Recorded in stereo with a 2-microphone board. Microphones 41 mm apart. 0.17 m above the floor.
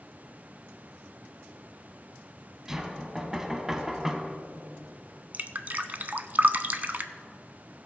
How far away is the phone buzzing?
No phone buzzing in this recording.